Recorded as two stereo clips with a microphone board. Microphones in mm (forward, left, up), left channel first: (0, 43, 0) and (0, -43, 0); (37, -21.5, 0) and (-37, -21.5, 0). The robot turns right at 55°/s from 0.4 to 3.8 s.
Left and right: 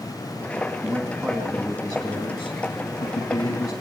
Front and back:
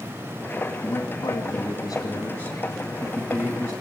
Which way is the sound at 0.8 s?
45° right.